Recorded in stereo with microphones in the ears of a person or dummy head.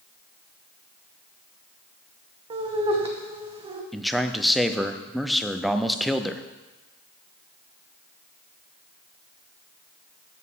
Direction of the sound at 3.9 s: Centre (ahead or behind).